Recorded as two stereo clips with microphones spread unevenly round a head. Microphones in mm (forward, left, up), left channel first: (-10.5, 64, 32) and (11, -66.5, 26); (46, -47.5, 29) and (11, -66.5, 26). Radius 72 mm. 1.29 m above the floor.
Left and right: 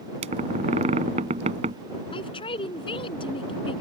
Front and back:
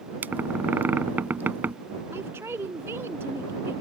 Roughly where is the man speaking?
Behind left.